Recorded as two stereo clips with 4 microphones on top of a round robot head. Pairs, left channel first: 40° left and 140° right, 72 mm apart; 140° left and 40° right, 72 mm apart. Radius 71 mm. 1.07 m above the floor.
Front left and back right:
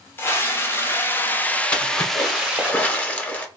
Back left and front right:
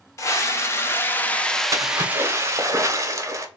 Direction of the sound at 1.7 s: 25° right.